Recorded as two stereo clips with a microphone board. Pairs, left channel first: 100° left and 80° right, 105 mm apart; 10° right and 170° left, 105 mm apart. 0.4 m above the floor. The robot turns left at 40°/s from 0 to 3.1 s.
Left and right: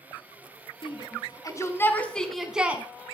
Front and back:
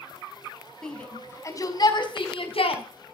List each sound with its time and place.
0.8 s a shout: 75° left, 3.5 m; by 2.8 s 10° right, 3.5 m